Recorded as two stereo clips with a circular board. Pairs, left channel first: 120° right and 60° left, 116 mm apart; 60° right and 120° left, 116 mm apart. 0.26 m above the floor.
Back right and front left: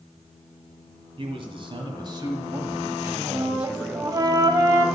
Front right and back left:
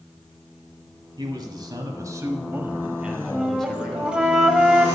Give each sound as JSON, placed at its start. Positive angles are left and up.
{"t": 1.2, "sound": "a man speaking", "azimuth_deg": 80, "distance_m": 1.9}
{"t": 3.3, "sound": "a flute", "azimuth_deg": 45, "distance_m": 0.8}